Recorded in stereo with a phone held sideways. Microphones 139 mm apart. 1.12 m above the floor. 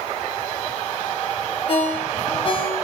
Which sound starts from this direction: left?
A ringtone, at 1.7 s.